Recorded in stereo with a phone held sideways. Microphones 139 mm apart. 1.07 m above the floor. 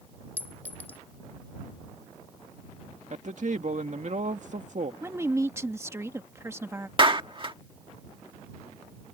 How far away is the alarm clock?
I don't hear an alarm clock.